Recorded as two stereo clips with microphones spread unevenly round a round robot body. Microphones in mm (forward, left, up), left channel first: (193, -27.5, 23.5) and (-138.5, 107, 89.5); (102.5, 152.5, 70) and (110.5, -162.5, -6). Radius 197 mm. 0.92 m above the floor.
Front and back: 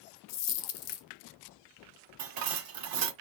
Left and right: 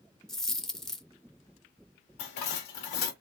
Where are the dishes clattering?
125° left, 1.3 m.